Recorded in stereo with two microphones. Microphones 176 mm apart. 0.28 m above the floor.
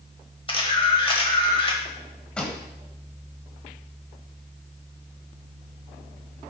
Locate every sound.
0.5 s a camera shutter: 30° left (ahead or behind), 1.3 m
2.4 s a pop: 5° left (ahead or behind), 1.5 m